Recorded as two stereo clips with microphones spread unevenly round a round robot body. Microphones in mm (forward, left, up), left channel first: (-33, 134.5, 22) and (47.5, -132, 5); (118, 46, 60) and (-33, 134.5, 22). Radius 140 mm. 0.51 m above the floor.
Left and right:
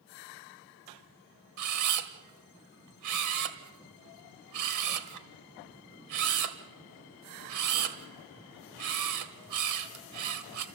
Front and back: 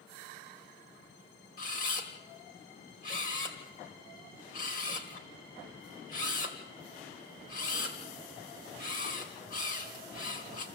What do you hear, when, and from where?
1.6 s a camera shutter: 90° right, 1.8 m